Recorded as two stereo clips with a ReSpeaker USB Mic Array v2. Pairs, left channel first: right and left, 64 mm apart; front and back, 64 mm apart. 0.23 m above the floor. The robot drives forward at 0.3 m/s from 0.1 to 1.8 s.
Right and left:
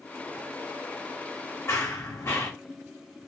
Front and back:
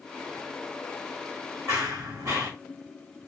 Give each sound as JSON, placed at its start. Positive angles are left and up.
{"t": 1.7, "sound": "running footsteps", "azimuth_deg": -135, "distance_m": 1.0}